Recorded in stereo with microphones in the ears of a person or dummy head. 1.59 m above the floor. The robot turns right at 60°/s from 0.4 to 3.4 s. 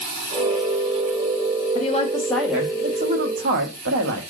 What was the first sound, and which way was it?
A woman speaking, 140° left.